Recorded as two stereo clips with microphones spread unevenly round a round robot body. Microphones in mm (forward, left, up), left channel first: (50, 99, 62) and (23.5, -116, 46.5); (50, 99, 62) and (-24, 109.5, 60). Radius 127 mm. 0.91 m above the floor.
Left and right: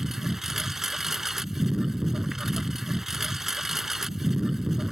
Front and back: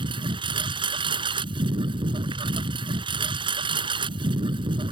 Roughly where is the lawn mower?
Behind.